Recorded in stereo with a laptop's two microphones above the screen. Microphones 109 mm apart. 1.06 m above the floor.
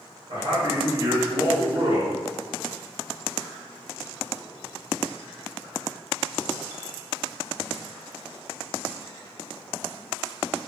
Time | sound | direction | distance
0.3 | a man speaking | 80° right | 1.5 m